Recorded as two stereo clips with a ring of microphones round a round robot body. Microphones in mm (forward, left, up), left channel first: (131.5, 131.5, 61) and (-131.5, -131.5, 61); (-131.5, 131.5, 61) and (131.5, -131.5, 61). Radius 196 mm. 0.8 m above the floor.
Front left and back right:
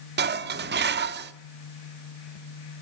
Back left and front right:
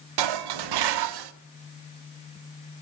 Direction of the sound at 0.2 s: 70° right.